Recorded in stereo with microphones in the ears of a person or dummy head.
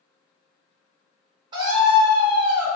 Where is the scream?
25° right (ahead or behind), 0.8 m.